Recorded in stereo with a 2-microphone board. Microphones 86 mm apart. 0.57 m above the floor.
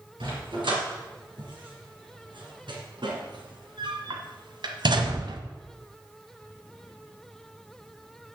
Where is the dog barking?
80° right, 4 m; by 5.4 s 70° right (ahead or behind), 1.0 m.